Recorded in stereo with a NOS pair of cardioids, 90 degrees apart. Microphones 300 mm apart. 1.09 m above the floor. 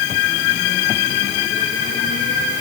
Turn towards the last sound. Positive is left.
No sound to turn to.